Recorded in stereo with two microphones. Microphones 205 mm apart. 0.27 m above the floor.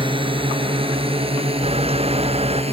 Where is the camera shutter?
30° right (ahead or behind).